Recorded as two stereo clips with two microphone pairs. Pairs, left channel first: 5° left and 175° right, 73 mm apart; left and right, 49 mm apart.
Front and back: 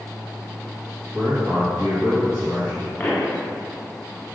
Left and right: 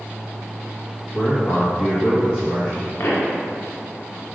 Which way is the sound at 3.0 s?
70° left.